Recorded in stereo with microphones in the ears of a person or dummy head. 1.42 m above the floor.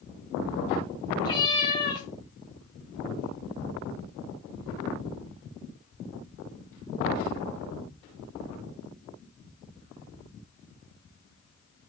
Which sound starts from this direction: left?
A cat meowing, at 1.2 s.